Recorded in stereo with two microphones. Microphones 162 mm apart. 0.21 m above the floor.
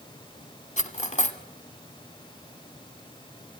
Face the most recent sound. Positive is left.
turn(degrees=45)  # may be behind; listen again after turning